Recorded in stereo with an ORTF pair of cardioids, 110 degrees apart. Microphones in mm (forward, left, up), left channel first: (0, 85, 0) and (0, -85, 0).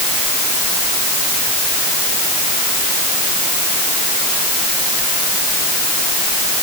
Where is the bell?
I don't hear a bell.